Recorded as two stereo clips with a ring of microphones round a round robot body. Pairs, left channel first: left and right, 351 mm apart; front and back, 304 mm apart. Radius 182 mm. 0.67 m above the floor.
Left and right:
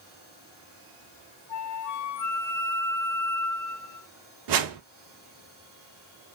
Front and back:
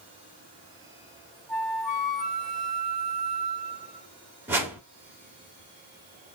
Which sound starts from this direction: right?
A whoosh, at 4.5 s.